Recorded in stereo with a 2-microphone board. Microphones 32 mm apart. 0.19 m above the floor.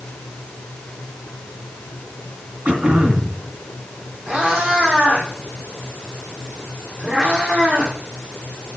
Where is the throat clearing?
45° right (ahead or behind), 1.8 m.